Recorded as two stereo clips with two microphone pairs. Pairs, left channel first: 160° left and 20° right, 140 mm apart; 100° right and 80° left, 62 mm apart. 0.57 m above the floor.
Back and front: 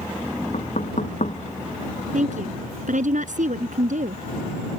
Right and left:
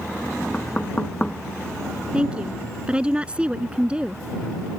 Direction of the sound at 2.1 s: 5° left.